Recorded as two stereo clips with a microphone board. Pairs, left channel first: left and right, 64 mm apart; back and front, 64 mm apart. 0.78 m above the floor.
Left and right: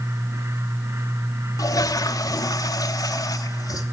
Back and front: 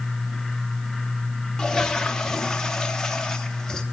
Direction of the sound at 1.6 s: 100° left.